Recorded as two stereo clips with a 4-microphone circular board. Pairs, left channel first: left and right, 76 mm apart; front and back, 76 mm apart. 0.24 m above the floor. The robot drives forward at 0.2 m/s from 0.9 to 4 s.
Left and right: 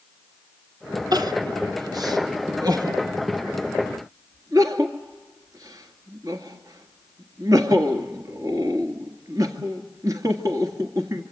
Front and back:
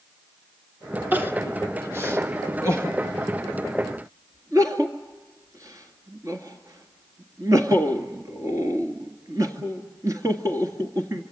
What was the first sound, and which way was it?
Crying, 115° right.